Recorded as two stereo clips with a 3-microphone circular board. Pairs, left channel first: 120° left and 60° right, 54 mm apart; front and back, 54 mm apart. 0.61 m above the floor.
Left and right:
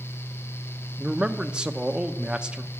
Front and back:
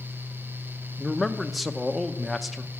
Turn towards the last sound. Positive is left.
turn(degrees=-90)